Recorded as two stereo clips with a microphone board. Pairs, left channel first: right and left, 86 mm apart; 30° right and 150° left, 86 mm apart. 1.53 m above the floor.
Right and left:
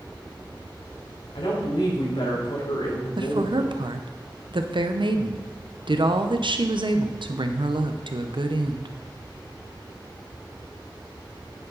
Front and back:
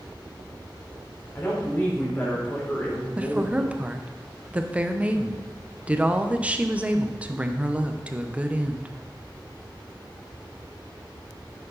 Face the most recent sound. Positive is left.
turn(degrees=75)